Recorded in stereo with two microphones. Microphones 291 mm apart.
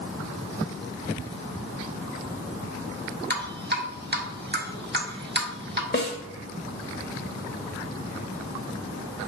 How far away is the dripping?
About 1.2 m.